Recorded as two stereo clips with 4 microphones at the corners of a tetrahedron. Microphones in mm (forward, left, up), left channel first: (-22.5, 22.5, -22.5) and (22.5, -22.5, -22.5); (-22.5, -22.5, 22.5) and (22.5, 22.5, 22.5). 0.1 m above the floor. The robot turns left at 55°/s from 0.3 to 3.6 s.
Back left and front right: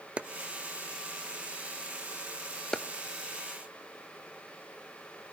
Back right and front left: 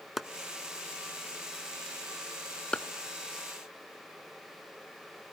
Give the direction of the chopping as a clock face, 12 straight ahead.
1 o'clock.